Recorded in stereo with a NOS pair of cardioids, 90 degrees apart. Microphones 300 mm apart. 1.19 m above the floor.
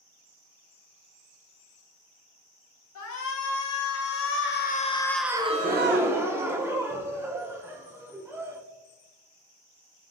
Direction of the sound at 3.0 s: 70° left.